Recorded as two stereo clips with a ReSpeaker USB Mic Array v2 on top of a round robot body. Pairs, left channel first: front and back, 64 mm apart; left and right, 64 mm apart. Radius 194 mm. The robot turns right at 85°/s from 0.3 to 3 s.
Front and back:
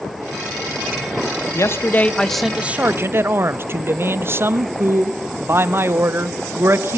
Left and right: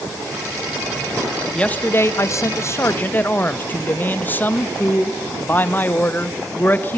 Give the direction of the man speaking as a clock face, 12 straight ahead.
11 o'clock.